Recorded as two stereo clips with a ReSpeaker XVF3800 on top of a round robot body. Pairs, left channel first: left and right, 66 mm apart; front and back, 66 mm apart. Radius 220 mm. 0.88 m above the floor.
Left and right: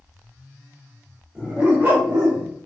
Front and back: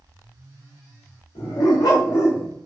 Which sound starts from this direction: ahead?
A dog barking, at 1.4 s.